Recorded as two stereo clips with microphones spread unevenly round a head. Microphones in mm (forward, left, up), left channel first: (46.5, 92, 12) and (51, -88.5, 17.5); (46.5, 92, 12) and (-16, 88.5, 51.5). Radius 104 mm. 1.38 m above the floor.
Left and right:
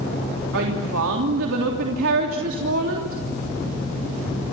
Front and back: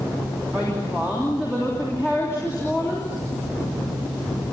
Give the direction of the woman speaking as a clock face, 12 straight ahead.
3 o'clock.